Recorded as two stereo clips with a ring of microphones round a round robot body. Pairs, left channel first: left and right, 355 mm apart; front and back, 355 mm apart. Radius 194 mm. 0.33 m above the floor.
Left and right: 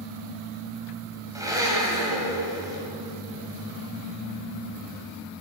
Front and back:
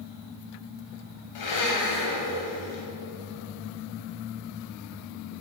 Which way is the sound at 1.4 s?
10° right.